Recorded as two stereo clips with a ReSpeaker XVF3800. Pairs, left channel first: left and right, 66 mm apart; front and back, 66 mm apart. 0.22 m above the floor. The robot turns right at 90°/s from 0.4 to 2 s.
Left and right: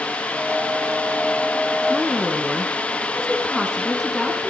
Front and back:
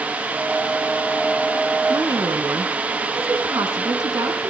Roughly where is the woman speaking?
Behind.